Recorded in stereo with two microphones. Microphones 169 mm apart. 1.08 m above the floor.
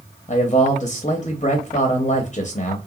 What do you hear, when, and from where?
0.3 s a man speaking: 40° left (ahead or behind), 0.7 m